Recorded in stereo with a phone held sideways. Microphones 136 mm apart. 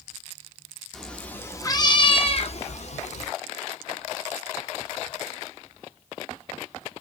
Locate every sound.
0.9 s a cat meowing: 5° left (ahead or behind), 0.8 m; by 3.3 s 55° left (ahead or behind), 1.0 m